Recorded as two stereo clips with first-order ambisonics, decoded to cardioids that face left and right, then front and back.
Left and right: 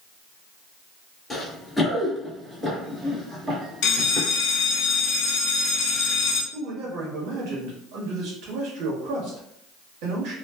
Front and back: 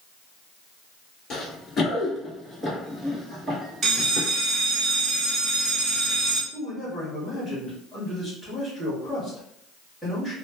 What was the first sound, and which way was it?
Running footsteps, 25° left.